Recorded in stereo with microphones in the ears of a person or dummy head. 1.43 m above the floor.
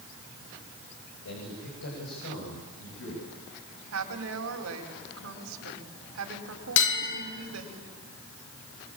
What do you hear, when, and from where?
1.2 s a man speaking: 75° left (ahead or behind), 6.5 m; by 3.3 s 80° left, 9 m
3.9 s a woman speaking: 80° right, 5 m
6.8 s a bell: 65° left (ahead or behind), 3 m